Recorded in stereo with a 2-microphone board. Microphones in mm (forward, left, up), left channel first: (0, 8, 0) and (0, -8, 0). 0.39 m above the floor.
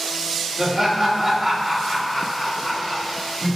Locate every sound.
0.6 s laughter: 20° right (ahead or behind), 1.2 m; by 3.6 s 45° left (ahead or behind), 1.6 m